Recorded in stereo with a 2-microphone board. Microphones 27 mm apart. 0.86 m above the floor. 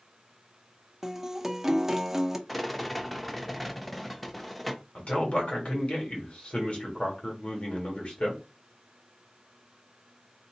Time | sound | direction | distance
1.0 | a guitar | 15° right (ahead or behind) | 0.5 m
2.5 | a rattle | 5° left (ahead or behind) | 0.6 m
5.0 | a man speaking | 50° left (ahead or behind) | 1.6 m